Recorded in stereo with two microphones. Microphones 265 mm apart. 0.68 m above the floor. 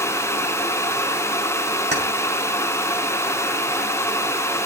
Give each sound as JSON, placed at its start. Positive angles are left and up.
{"t": 1.9, "sound": "keys jangling", "side_deg": -40, "distance_m": 3.0}